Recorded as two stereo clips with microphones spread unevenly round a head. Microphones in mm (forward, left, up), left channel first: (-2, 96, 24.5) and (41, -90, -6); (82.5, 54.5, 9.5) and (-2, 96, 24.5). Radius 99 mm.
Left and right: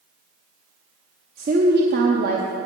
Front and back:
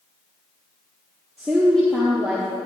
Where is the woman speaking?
115° right, 0.7 m.